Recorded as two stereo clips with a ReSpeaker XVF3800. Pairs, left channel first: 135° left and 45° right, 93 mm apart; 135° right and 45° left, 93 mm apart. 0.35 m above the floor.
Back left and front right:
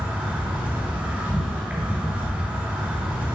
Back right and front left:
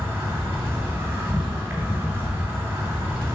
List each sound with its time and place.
0.0 s an insect: 5° left, 2.5 m